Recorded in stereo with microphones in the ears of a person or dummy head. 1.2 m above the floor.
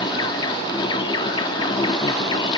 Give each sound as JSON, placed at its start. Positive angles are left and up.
{"t": 0.0, "sound": "an insect", "side_deg": 25}